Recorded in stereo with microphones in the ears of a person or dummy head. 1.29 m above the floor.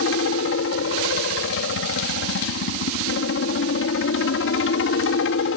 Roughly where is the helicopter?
Left.